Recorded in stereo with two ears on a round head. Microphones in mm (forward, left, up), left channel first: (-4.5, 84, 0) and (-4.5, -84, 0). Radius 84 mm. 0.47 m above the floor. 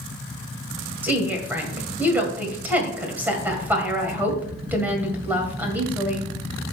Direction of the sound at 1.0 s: 10° right (ahead or behind).